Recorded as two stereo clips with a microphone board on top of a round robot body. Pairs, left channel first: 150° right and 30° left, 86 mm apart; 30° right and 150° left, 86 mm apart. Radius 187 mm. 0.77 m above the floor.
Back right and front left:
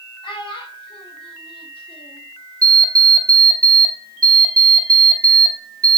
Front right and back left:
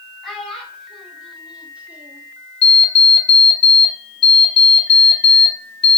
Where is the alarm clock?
20° right, 0.9 m.